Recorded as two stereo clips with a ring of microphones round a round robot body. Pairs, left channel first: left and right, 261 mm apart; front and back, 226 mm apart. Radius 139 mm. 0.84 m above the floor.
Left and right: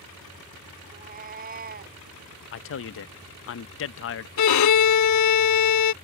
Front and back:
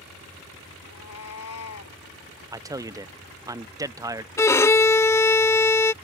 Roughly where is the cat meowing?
Ahead right.